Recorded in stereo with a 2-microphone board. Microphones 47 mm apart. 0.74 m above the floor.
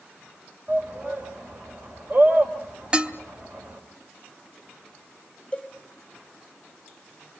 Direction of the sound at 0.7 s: 45° right (ahead or behind).